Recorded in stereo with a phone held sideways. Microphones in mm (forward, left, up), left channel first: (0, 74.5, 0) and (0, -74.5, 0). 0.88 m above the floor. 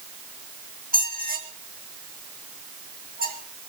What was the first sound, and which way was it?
A squeak, 80° right.